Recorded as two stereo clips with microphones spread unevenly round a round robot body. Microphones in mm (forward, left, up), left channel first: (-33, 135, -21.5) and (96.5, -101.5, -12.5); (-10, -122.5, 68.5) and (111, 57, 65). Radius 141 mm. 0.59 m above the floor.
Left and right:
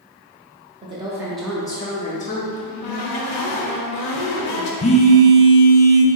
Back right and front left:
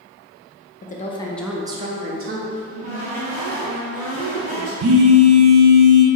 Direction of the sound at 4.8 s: 50° left.